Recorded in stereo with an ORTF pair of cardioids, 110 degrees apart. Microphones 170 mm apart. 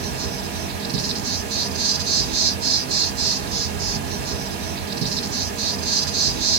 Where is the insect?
70° right, 1.3 m.